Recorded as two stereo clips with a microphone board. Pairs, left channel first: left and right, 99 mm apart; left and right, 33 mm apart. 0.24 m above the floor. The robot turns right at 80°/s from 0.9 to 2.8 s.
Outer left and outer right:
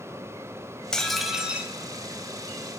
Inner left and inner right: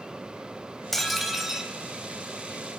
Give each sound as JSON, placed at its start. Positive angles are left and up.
{"t": 0.9, "sound": "dishes clattering", "side_deg": 10, "distance_m": 0.6}